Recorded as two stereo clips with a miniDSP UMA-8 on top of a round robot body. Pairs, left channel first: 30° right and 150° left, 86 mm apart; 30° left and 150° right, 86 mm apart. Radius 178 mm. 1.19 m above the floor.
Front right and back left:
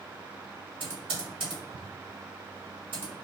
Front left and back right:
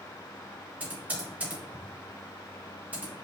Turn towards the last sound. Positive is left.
turn(degrees=140)